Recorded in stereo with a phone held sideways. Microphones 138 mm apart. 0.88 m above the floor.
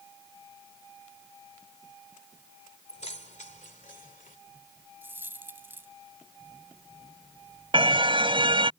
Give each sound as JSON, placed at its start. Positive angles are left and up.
{"t": 2.9, "sound": "keys jangling", "side_deg": 55}
{"t": 5.0, "sound": "a dropped coin", "side_deg": -15}
{"t": 7.7, "sound": "a car horn", "side_deg": -40}